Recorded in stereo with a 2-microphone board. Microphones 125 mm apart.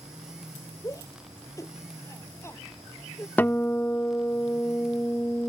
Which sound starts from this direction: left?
A shout, at 0.8 s.